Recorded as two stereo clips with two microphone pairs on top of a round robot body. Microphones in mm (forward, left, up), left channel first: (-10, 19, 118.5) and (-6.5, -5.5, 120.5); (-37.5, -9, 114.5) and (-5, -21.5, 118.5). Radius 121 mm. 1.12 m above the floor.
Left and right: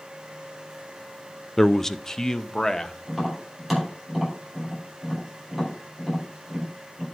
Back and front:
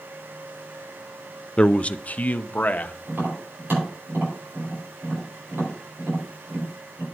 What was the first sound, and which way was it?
A man speaking, 160° left.